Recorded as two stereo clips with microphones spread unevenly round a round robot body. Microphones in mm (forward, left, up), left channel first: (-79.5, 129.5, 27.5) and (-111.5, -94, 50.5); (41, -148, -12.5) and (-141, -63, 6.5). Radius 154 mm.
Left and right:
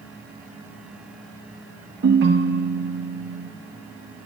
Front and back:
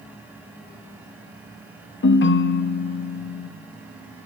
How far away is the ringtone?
About 0.7 m.